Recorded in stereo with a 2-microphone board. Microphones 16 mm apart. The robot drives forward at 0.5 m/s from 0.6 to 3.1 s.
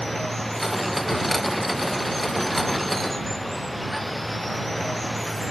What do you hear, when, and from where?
0.0 s running water: 10° left (ahead or behind); by 5.5 s 5° left (ahead or behind)